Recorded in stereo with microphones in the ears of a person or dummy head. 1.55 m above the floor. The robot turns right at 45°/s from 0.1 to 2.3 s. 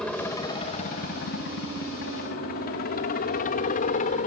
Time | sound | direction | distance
0.0 | a helicopter | centre (ahead or behind) | ?